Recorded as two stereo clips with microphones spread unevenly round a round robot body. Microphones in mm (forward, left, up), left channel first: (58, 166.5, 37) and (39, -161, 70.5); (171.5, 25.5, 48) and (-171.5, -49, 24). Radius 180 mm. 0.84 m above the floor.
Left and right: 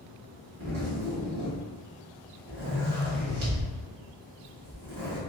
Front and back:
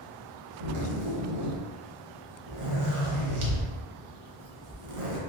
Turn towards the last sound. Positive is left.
turn(degrees=-140)